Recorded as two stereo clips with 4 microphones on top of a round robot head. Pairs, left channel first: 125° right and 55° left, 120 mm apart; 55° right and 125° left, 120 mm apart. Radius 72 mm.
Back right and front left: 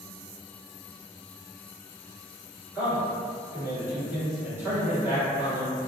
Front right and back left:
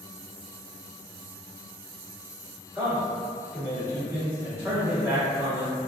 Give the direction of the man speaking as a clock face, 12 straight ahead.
9 o'clock.